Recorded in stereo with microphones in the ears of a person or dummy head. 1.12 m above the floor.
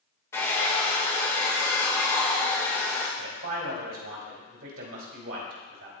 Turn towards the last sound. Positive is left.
turn(degrees=-75)  # may be behind; listen again after turning